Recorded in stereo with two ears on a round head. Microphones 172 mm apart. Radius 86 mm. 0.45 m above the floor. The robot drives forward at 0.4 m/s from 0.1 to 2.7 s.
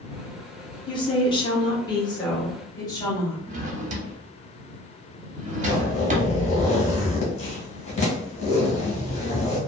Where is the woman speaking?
25° left (ahead or behind), 0.8 m; by 3.4 s 20° left (ahead or behind), 1.0 m.